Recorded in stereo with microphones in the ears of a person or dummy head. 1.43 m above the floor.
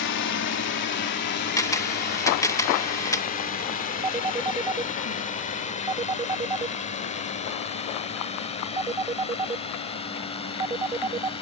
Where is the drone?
60° left (ahead or behind); by 11.4 s 30° left (ahead or behind).